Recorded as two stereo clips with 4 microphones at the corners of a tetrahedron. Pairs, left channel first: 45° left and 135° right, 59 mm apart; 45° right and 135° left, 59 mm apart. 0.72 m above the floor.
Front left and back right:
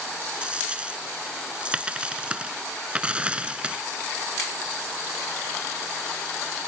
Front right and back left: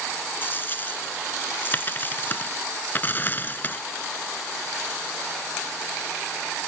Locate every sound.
0.4 s a dropped coin: 75° right